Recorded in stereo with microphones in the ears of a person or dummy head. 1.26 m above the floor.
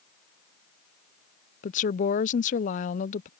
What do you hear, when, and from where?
1.6 s a woman speaking: 40° left (ahead or behind)